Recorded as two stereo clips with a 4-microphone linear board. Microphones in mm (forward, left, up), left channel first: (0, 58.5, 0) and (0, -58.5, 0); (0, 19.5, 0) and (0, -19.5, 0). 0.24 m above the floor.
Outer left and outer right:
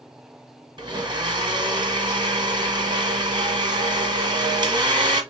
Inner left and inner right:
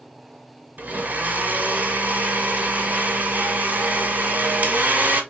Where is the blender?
40° right (ahead or behind), 1.2 m.